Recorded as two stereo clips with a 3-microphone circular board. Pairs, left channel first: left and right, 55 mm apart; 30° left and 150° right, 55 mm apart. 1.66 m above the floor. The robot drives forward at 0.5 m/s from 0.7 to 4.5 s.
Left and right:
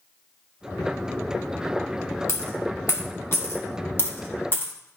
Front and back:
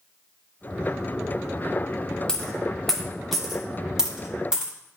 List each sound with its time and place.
2.3 s a dropped coin: 105° left, 1.6 m; by 4.7 s 140° left, 2 m